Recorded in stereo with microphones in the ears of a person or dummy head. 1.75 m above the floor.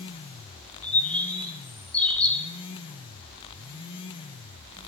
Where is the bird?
5° left (ahead or behind), 1.6 m.